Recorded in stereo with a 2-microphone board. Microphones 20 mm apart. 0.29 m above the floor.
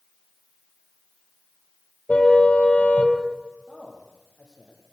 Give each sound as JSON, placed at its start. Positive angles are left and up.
{"t": 2.1, "sound": "a car horn", "side_deg": 75, "distance_m": 5.0}
{"t": 3.7, "sound": "a man speaking", "side_deg": 40, "distance_m": 8.0}